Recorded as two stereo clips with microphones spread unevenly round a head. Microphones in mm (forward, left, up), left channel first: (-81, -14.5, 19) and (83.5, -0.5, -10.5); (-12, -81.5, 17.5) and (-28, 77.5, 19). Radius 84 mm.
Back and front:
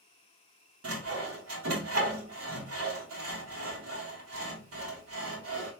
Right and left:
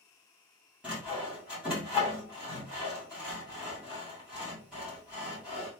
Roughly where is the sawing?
Ahead.